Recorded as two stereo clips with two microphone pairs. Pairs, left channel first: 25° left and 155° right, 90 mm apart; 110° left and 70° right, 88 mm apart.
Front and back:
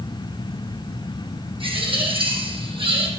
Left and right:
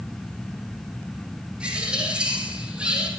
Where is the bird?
150° right, 4 m.